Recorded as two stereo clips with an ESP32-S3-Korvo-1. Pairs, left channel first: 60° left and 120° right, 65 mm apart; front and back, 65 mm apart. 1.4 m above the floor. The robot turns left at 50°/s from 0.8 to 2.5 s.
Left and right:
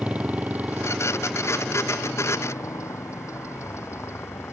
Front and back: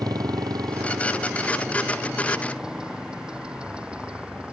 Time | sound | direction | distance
0.0 | a motorcycle | 170° left | ?